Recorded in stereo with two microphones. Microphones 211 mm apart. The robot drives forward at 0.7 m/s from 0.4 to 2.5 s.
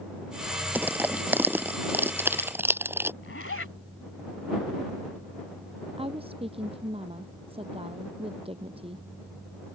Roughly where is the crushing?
Centre.